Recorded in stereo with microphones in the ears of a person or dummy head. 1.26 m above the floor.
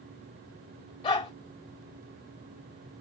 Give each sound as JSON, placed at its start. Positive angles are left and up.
{"t": 1.0, "sound": "a dog barking", "side_deg": 25, "distance_m": 1.0}